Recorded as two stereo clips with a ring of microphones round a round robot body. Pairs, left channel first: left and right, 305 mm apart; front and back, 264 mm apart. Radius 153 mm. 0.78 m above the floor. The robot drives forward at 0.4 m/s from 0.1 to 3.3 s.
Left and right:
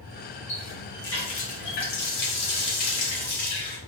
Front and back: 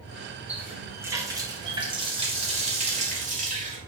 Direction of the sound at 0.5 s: 95° left.